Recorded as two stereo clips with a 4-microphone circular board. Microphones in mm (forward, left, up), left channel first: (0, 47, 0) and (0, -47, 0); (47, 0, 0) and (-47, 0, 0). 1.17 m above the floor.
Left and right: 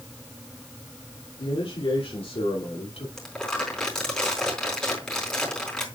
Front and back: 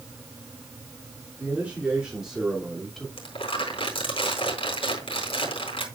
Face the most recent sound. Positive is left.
turn(degrees=10)